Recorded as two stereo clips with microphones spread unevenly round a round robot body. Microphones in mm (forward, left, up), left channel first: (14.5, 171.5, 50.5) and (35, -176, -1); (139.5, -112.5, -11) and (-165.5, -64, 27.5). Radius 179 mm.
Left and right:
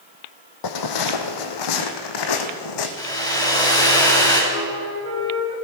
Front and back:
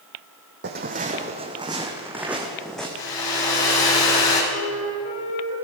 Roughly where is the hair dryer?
Ahead.